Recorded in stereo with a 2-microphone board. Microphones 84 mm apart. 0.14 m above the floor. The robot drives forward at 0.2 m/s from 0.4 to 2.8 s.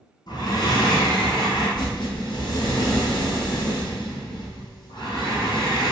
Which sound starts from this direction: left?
Breathing, at 0.3 s.